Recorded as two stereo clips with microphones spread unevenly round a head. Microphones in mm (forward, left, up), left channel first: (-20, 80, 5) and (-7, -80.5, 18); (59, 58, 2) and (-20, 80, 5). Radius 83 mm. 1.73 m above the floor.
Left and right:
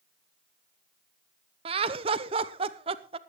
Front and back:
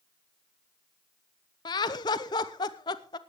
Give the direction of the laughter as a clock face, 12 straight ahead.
1 o'clock.